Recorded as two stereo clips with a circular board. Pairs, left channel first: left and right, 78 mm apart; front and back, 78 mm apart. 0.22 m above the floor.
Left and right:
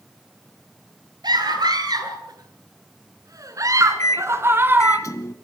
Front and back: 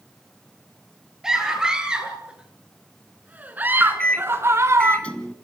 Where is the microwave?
70° left, 1.2 m.